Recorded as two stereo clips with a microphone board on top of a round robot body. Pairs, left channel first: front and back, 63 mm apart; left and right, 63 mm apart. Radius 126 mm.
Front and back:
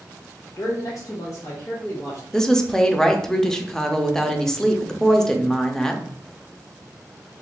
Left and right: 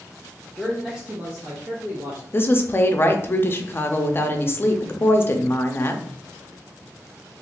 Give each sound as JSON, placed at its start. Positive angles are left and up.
{"t": 0.6, "sound": "a man speaking", "azimuth_deg": 15, "distance_m": 0.6}
{"t": 2.3, "sound": "a woman speaking", "azimuth_deg": 75, "distance_m": 0.6}